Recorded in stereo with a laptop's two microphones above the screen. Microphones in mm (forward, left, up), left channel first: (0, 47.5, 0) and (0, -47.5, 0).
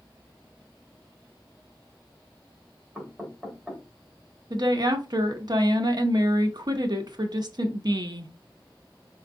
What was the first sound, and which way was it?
Knocking, centre (ahead or behind).